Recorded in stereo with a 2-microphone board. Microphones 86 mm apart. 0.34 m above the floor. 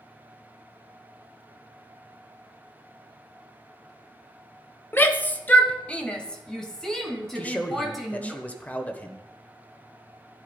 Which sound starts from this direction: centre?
A man speaking, at 7.3 s.